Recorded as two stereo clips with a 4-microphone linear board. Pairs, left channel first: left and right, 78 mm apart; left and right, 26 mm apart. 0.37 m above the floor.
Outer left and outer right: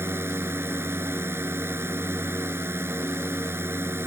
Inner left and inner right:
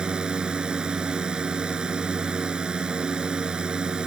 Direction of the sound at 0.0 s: 30° right (ahead or behind).